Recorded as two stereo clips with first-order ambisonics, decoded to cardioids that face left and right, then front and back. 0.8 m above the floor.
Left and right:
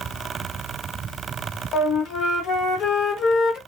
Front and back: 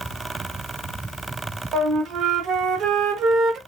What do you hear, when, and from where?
1.7 s a flute: 135° left, 0.7 m